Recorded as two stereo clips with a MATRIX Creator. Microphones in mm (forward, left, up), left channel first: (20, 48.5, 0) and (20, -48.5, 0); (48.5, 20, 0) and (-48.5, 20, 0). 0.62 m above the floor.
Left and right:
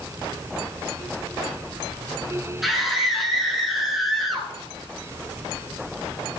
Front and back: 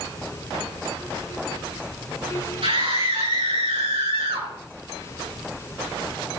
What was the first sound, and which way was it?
A scream, straight behind.